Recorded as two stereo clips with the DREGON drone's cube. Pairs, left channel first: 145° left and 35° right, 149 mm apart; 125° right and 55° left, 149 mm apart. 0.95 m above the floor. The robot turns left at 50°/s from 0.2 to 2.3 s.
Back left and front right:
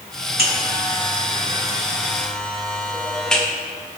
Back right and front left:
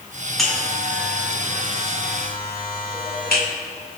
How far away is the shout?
I don't hear a shout.